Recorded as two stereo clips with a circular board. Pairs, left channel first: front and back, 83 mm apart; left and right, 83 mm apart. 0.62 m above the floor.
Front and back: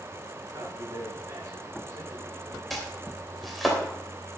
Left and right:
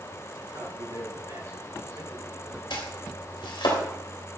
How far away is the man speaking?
About 6.5 m.